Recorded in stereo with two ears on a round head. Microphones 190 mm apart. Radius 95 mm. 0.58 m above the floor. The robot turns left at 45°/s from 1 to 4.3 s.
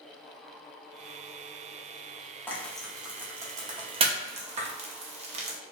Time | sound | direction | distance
2.5 | frying | 10° left (ahead or behind) | 0.6 m